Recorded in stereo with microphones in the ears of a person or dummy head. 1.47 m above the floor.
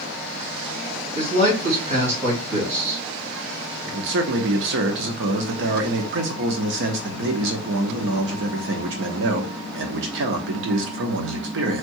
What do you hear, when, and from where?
1.1 s a man speaking: 50° right (ahead or behind), 3 m
3.9 s a man speaking: 55° right (ahead or behind), 0.9 m